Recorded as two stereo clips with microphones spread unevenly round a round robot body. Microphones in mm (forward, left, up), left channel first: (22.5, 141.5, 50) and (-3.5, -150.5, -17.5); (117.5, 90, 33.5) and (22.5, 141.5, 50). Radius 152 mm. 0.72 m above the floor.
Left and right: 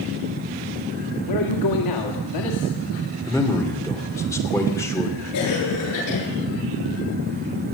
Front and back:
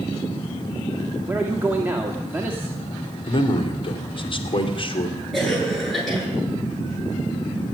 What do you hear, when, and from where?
1.3 s a man speaking: 75° left, 1.9 m
3.3 s a man speaking: straight ahead, 2.5 m
5.3 s a cough: 60° left, 9.5 m